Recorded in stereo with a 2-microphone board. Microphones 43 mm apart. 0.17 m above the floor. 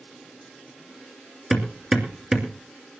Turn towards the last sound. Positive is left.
turn(degrees=-15)  # may be behind; listen again after turning